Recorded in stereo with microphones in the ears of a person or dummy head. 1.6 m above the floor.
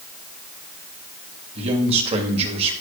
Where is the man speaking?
35° right (ahead or behind), 2.5 m.